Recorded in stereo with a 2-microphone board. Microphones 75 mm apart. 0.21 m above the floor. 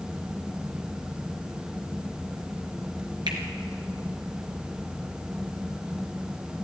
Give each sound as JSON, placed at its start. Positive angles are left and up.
{"t": 3.3, "sound": "a finger snap", "side_deg": -65, "distance_m": 3.0}